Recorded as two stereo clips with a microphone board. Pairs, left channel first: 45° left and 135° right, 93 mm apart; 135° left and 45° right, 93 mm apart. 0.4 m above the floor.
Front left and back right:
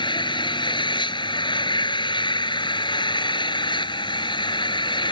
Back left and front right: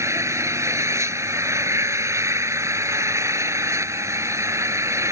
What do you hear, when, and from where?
0.0 s an engine running: 15° left